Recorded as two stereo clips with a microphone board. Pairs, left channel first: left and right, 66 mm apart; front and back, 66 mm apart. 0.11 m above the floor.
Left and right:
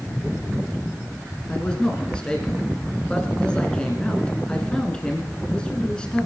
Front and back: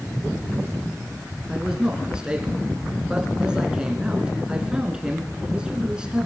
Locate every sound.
1.5 s a man speaking: 135° left, 1.7 m